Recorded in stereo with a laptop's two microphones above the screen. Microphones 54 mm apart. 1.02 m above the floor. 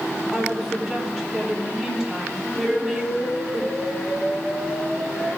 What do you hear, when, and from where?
0.3 s a woman speaking: 5° left (ahead or behind), 2.5 m
2.6 s an explosion: 5° right (ahead or behind), 4.5 m